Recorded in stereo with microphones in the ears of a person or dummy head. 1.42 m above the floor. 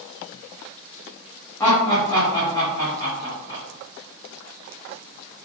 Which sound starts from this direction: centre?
Laughter, at 1.6 s.